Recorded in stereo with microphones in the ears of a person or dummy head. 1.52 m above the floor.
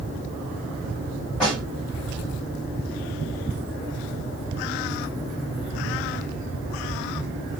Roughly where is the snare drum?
Centre.